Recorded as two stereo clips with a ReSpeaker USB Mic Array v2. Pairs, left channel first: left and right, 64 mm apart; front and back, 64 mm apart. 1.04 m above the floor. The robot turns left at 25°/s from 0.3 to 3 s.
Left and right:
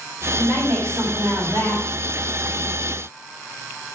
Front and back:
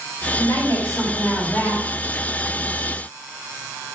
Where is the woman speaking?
30° right, 5 m; by 1.8 s 70° right, 5 m.